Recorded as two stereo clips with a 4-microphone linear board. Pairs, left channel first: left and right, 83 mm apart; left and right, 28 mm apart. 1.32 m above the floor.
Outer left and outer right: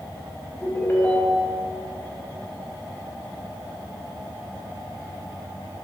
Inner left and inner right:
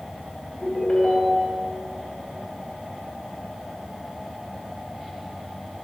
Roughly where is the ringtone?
Left.